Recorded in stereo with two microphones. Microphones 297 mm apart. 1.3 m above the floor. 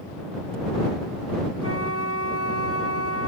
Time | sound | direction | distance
1.6 | a flute | 50° left (ahead or behind) | ?